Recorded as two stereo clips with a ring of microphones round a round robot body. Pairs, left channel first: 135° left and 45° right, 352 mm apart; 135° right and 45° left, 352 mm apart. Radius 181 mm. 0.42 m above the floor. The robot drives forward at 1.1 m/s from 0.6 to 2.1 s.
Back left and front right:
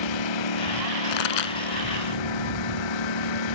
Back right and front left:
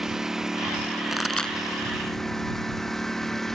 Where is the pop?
135° left; by 1.6 s 140° left.